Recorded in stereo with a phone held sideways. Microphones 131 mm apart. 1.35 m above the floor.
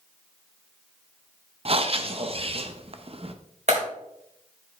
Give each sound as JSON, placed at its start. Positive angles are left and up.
{"t": 1.6, "sound": "breathing", "side_deg": -50, "distance_m": 0.7}
{"t": 3.7, "sound": "a clap", "side_deg": -65, "distance_m": 4.0}